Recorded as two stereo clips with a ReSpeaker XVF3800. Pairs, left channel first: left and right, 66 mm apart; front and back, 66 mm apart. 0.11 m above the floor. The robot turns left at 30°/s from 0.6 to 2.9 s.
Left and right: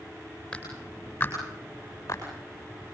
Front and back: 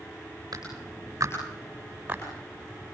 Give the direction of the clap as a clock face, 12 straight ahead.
7 o'clock.